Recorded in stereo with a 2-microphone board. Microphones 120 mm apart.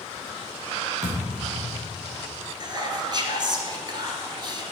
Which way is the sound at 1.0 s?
80° right.